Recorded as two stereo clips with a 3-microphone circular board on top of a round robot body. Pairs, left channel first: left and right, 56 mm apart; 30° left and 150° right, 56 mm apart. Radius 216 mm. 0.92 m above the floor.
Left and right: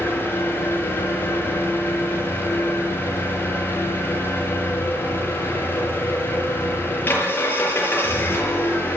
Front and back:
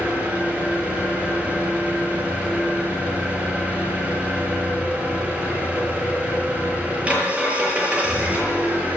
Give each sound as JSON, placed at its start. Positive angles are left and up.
{"t": 0.0, "sound": "an engine running", "azimuth_deg": 140, "distance_m": 7.0}